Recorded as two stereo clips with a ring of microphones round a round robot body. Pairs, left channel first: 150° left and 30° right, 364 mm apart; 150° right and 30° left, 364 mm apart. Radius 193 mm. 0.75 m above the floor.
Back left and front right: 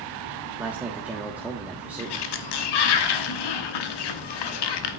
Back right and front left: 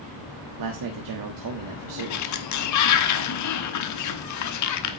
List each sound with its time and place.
0.6 s a man speaking: 55° left, 1.5 m
2.0 s a sliding door: 165° left, 1.1 m